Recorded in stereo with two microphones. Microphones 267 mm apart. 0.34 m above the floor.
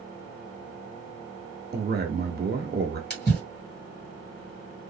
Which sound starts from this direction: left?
A splash, at 3.1 s.